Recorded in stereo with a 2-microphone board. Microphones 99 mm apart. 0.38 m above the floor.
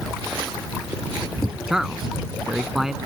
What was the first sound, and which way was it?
A man speaking, 5° right (ahead or behind).